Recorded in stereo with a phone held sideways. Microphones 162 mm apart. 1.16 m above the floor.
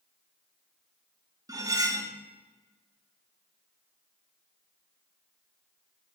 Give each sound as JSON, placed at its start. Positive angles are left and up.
{"t": 1.5, "sound": "cutlery clinking", "side_deg": -25, "distance_m": 0.7}